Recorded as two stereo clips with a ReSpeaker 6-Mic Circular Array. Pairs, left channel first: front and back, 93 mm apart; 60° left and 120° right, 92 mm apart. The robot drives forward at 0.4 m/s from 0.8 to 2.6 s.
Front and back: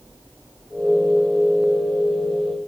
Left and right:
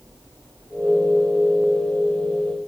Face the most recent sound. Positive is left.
No sound to turn to.